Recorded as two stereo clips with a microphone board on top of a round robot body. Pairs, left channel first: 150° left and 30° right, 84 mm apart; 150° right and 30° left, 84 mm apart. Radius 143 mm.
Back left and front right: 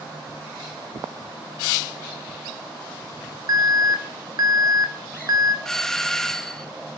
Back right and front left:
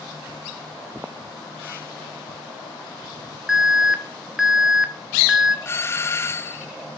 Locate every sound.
3.5 s an alarm: 55° right, 2.0 m
5.7 s a doorbell: 130° right, 1.3 m